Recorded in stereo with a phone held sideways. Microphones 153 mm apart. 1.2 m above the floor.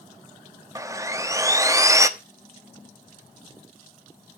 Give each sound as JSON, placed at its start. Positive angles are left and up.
{"t": 0.8, "sound": "sawing", "side_deg": -20, "distance_m": 1.0}